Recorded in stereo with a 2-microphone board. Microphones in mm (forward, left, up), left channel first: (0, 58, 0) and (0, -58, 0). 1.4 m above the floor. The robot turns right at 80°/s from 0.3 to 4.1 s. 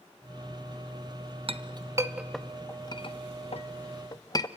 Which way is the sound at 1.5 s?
55° right (ahead or behind).